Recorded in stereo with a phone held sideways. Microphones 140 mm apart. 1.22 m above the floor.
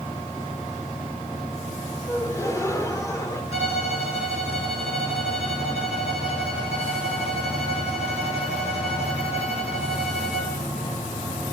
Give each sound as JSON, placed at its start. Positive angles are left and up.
{"t": 2.1, "sound": "a gasp", "side_deg": 25, "distance_m": 1.7}
{"t": 3.5, "sound": "a violin", "side_deg": 45, "distance_m": 7.0}